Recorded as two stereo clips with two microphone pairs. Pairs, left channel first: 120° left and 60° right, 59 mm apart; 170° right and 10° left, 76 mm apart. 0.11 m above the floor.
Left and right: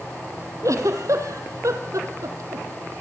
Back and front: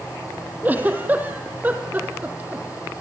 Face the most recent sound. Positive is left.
turn(degrees=-55)